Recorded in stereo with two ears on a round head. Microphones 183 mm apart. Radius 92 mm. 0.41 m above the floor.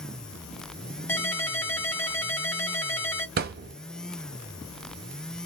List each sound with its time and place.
1.1 s a ringtone: 10° left (ahead or behind), 1.0 m
3.4 s a thud: 50° right (ahead or behind), 0.5 m